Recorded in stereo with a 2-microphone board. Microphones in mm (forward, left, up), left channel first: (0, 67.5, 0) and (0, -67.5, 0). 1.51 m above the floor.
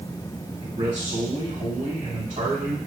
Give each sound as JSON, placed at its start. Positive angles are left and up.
{"t": 0.6, "sound": "a man speaking", "side_deg": -60, "distance_m": 1.9}